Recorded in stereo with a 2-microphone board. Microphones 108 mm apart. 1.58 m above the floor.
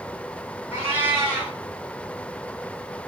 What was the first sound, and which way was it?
A cat meowing, 20° right (ahead or behind).